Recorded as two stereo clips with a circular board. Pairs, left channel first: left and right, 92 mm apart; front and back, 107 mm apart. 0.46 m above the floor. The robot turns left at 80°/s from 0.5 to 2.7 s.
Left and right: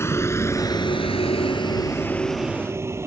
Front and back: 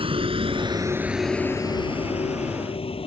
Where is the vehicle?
150° left; by 3.1 s 30° right.